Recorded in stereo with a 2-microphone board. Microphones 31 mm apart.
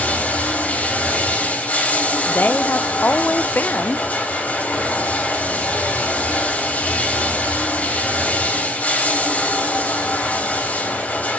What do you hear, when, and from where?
0.0 s running water: 65° left (ahead or behind), 3 m
2.3 s a woman speaking: 80° left, 0.5 m